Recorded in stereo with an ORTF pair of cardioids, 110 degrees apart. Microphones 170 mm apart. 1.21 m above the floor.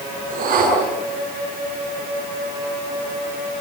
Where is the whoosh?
55° right, 7.5 m.